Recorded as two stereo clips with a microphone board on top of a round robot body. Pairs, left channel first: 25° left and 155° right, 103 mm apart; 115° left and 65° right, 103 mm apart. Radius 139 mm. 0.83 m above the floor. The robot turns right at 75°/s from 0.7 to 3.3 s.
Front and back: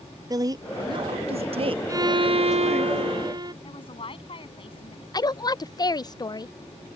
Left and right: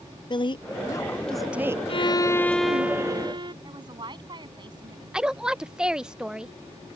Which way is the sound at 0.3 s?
150° left.